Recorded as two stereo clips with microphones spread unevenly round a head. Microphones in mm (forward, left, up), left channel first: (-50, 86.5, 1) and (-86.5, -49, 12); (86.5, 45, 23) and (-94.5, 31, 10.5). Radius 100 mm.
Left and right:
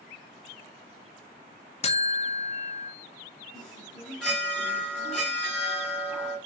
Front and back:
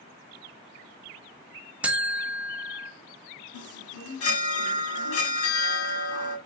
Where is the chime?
10° right, 1.5 m.